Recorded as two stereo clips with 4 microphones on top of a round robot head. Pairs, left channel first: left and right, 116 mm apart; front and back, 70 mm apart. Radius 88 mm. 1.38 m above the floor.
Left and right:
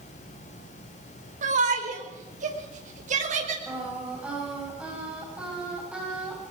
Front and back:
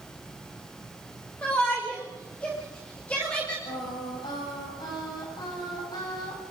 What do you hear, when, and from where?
1.4 s a shout: 80° right, 5 m
3.7 s singing: 10° right, 9 m